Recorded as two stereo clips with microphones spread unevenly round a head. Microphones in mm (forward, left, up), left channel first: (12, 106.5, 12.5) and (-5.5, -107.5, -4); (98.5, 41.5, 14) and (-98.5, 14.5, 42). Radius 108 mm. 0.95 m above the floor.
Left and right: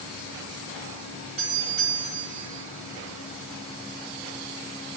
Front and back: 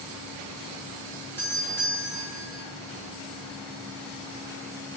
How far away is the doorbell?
About 5.5 m.